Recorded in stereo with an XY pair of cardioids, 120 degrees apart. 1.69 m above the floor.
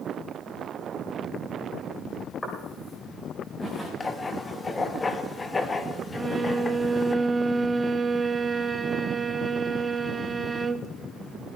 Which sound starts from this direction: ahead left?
Writing, at 4.0 s.